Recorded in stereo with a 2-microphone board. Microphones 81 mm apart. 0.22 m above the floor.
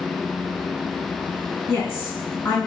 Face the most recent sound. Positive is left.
turn(degrees=25)  # may be behind; listen again after turning